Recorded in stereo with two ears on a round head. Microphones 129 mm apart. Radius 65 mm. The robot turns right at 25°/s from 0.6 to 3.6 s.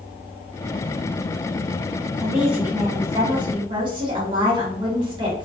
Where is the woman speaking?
Straight behind, 1.2 m; by 5.5 s 145° right, 1.2 m.